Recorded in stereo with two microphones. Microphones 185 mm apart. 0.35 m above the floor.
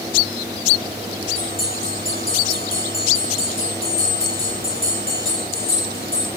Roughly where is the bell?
Left.